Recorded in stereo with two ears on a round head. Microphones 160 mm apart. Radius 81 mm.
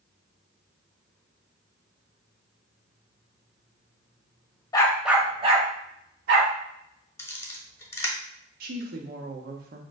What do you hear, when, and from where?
4.7 s a dog barking: 20° left (ahead or behind), 0.6 m; by 6.5 s 60° right (ahead or behind), 1.5 m
7.2 s a camera shutter: 15° left (ahead or behind), 0.9 m
8.6 s a woman speaking: 55° right (ahead or behind), 0.8 m